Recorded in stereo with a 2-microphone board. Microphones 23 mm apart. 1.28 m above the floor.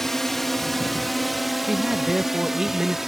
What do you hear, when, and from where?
0.0 s a drone: 15° left (ahead or behind); by 3.1 s 15° right (ahead or behind)
1.7 s a man speaking: 25° right (ahead or behind)